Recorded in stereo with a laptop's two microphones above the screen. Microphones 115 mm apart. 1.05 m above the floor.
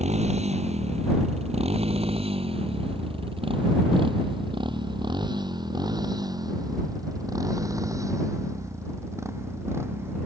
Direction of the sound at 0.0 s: 75° right (ahead or behind).